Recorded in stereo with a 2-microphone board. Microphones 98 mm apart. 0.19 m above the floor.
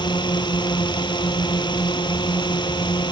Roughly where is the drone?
Left.